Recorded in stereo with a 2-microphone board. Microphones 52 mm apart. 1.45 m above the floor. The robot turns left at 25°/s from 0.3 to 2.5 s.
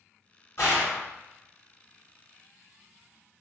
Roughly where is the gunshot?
Left.